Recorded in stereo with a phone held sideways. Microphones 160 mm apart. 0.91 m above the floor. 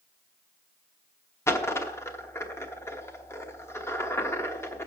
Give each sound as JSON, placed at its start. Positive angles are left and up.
{"t": 1.5, "sound": "a dropped coin", "side_deg": 15, "distance_m": 1.0}